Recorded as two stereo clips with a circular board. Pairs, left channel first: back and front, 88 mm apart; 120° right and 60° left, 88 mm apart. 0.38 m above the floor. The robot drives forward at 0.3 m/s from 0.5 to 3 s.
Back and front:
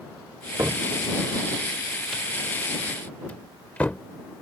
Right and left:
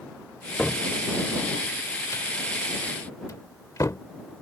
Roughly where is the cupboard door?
Ahead right.